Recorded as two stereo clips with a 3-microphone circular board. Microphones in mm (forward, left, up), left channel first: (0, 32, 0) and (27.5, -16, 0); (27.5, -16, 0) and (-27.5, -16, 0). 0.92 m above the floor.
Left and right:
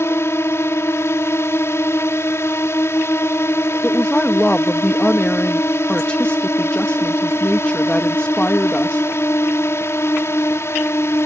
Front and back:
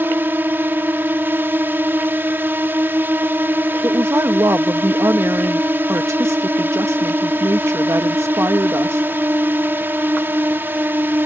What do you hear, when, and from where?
0.0 s a drone: 140° left
3.8 s a woman speaking: 175° right